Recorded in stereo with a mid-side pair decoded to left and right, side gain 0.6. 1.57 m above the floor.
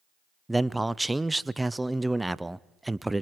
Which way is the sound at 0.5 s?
10° right.